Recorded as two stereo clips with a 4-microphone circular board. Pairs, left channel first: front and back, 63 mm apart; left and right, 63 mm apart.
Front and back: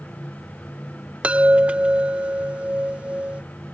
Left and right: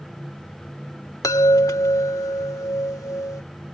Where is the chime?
110° left.